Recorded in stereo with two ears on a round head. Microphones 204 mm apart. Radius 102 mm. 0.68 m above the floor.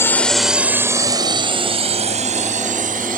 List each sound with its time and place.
0.0 s a drone: 10° left (ahead or behind); by 3.2 s 40° right (ahead or behind)